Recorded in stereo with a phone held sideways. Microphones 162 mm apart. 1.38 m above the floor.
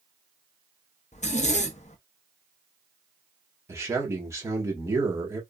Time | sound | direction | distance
1.1 | a zipper | 45° left (ahead or behind) | 0.5 m
3.7 | a man speaking | 15° right (ahead or behind) | 1.3 m